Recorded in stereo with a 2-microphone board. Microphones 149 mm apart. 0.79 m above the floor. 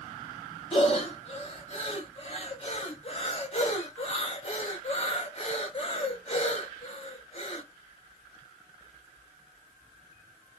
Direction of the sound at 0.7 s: 45° left (ahead or behind).